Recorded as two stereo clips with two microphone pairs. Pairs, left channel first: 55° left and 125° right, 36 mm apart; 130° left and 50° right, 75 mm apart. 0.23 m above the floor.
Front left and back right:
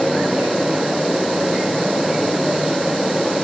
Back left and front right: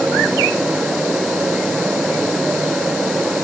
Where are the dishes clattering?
I don't hear dishes clattering.